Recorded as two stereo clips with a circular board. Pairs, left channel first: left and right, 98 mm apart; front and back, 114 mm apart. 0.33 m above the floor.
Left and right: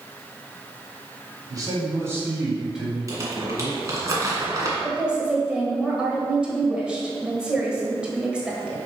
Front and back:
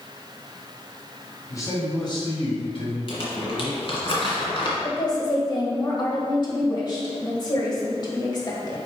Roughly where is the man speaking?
Ahead right.